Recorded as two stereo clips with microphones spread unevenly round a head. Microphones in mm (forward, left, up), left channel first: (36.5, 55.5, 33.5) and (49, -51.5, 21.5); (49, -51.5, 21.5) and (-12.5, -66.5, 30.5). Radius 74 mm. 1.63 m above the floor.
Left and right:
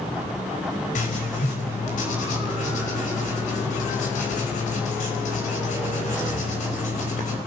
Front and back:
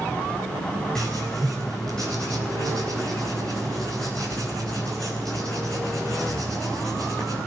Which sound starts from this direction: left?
Writing, at 0.9 s.